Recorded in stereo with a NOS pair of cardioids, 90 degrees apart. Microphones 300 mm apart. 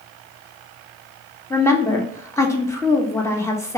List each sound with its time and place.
1.5 s a woman speaking: 10° left, 1.0 m